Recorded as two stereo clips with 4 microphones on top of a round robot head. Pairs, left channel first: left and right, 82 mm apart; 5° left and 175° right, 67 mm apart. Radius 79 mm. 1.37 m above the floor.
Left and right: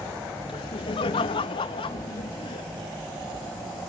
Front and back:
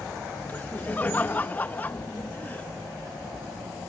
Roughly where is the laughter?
Left.